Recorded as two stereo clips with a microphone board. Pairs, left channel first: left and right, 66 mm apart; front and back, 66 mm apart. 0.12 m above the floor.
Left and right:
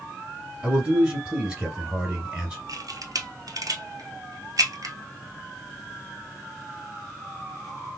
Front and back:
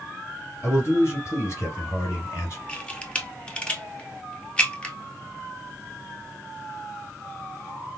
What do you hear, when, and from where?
0.6 s a man speaking: 25° right, 2.5 m
2.7 s a camera shutter: 75° right, 1.0 m